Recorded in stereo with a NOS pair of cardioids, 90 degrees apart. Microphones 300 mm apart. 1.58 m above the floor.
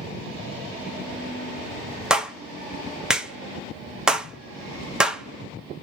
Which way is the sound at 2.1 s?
Straight ahead.